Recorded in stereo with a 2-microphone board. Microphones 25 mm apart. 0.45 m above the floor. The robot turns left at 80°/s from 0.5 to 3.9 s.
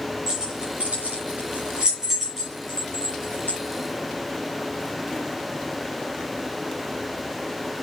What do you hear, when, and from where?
0.3 s keys jangling: 35° right (ahead or behind), 8 m; by 3.6 s 75° left (ahead or behind), 8 m